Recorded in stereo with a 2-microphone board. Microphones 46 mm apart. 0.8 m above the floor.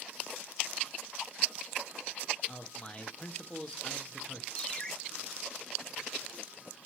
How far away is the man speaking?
About 1.3 m.